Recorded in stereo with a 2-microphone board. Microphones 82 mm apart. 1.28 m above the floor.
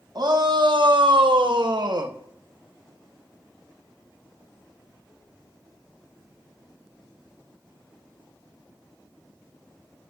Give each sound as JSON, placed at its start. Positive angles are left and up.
{"t": 0.1, "sound": "a shout", "side_deg": -55, "distance_m": 1.5}